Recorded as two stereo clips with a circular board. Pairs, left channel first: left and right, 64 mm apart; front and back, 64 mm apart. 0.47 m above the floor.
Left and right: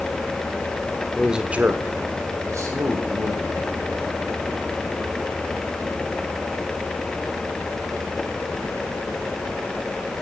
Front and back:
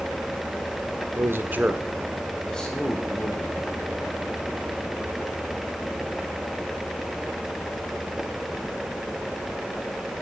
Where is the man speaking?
175° right, 1.1 m; by 3.7 s 65° right, 2.5 m.